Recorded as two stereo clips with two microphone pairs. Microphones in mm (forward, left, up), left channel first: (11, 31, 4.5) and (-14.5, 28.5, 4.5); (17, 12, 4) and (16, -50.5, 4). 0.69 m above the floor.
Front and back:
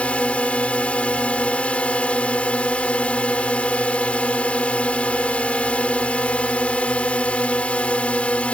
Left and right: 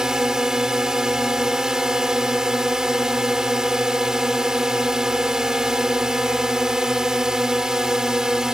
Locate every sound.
0.0 s a drone: 10° right